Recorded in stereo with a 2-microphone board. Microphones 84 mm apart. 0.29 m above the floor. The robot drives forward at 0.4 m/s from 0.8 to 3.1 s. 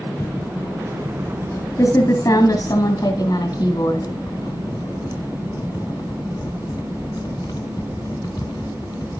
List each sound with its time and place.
0.2 s typing on a keyboard: 35° left (ahead or behind), 2.5 m; by 9.2 s 50° left (ahead or behind), 1.8 m